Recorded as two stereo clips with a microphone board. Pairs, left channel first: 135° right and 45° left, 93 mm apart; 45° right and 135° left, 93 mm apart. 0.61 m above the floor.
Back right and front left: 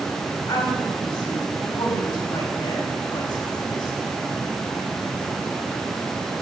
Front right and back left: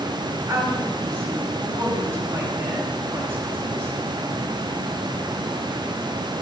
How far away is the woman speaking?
About 1.6 m.